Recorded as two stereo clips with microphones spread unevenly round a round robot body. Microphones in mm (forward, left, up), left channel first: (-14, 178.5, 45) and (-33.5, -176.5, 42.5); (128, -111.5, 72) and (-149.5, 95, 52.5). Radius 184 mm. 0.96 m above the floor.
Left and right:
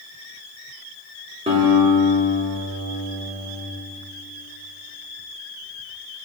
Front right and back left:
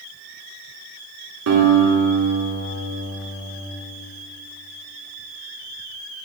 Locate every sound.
1.5 s a guitar: 165° right, 1.8 m